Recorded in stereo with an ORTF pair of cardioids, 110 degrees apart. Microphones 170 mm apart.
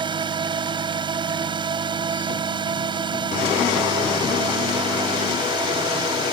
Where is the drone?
30° right.